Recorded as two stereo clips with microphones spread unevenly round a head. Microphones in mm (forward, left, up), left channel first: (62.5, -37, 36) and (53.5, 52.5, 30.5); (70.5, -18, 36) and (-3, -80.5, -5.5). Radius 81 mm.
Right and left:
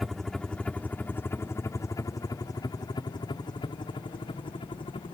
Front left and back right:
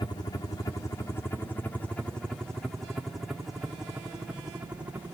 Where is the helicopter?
15° left; by 5.2 s 80° right.